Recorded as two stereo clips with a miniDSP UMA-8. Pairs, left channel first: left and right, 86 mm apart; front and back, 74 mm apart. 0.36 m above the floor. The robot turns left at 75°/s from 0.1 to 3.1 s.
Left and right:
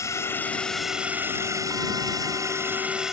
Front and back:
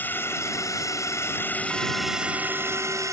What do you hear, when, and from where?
0.0 s a drone: 55° left; by 3.1 s 170° right